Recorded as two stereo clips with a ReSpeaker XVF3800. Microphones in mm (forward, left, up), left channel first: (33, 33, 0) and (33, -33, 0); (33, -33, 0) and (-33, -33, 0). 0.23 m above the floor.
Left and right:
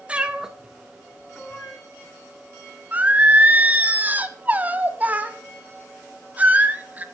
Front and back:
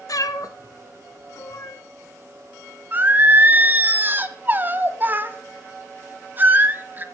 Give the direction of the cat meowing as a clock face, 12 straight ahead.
1 o'clock.